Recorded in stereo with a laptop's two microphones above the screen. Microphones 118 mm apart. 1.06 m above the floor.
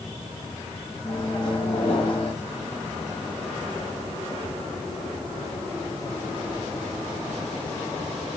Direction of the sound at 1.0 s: 40° left (ahead or behind).